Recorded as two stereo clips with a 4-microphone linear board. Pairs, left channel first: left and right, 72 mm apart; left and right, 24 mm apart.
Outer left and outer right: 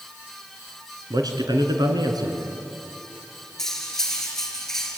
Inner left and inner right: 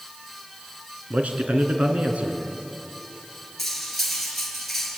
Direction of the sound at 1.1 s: 70° right (ahead or behind).